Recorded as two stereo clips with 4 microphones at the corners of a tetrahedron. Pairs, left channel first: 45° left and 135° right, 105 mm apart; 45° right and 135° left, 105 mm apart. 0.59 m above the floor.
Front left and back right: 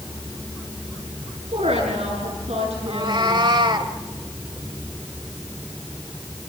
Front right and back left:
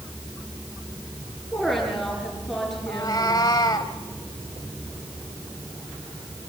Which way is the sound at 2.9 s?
95° right.